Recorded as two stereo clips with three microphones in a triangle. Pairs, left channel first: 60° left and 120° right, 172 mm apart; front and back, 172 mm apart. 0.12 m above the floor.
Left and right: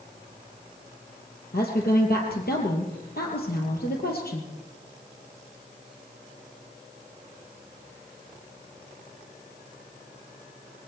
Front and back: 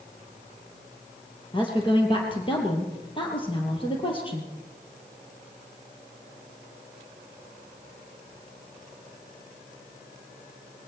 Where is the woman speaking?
55° left, 3 m.